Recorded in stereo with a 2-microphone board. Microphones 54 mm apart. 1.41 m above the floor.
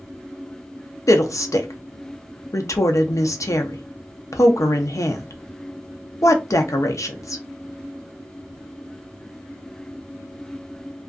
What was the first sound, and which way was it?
A woman speaking, 80° left.